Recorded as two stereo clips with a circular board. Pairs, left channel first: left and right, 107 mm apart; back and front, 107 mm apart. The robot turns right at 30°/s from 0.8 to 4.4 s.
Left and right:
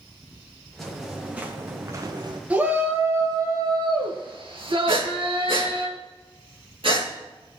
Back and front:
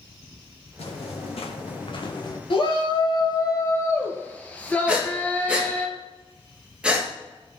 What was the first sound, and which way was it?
Footsteps, 175° left.